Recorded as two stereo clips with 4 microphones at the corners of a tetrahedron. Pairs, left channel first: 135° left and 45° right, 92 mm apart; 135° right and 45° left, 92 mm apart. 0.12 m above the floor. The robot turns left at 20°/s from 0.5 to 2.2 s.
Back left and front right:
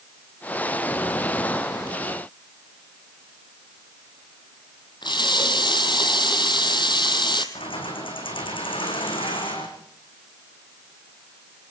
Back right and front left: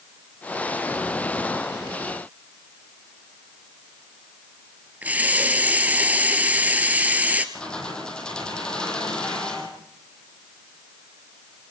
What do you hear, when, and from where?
5.0 s a running tap: 115° left, 1.8 m
7.5 s keys jangling: 145° left, 4.5 m